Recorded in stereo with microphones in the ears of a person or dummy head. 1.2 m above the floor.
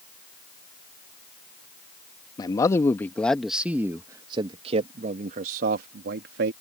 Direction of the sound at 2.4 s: 25° left (ahead or behind).